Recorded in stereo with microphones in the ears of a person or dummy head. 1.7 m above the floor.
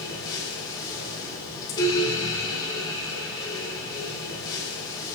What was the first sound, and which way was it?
A fan, 20° left (ahead or behind).